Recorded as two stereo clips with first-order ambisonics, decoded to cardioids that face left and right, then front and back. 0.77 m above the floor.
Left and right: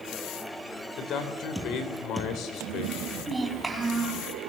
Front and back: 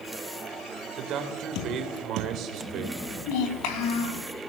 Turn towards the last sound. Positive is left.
turn(degrees=-5)